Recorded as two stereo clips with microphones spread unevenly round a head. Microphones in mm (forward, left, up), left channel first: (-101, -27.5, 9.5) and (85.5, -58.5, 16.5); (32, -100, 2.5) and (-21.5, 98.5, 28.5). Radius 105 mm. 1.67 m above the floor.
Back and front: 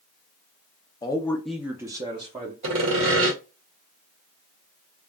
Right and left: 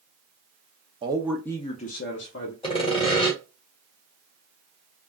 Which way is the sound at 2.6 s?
10° right.